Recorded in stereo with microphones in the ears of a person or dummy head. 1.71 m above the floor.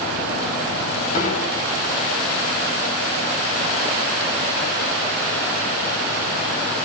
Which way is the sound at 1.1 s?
55° left (ahead or behind).